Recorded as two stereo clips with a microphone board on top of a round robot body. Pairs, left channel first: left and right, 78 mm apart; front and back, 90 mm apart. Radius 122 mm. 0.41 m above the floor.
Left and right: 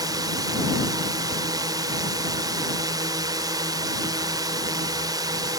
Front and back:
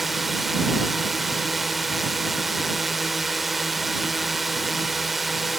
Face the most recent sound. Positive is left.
turn(degrees=-90)